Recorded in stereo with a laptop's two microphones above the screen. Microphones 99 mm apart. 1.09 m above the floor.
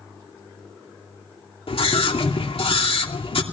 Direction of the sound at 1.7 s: 70° left (ahead or behind).